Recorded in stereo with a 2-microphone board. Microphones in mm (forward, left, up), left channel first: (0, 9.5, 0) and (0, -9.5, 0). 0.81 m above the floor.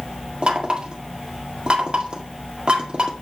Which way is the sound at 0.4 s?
50° right (ahead or behind).